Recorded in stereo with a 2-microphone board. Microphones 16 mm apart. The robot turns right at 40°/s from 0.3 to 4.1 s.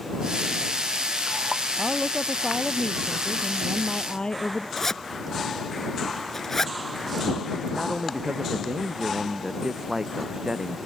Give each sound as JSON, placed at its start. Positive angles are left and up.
{"t": 1.8, "sound": "a woman speaking", "azimuth_deg": 25}
{"t": 4.8, "sound": "a zipper", "side_deg": 25}
{"t": 7.7, "sound": "a man speaking", "side_deg": -45}